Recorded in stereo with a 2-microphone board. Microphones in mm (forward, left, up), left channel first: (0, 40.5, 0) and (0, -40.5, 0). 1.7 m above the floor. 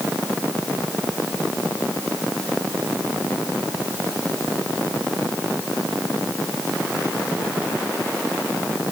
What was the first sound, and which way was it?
Only background noise.